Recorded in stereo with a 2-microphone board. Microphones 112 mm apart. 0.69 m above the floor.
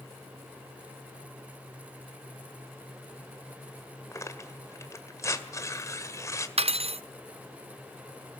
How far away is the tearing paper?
About 1.8 m.